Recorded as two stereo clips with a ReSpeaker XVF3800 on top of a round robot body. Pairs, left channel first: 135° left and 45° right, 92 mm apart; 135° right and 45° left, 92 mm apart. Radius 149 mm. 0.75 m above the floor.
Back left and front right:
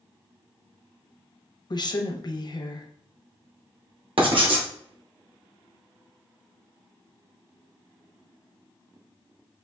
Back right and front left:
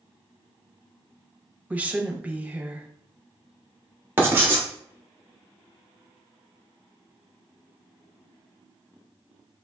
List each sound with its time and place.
1.7 s a woman speaking: 115° left, 0.9 m
4.2 s writing: 20° right, 1.1 m